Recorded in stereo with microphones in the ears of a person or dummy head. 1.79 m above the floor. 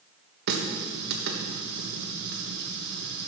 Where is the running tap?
60° right (ahead or behind), 1.4 m.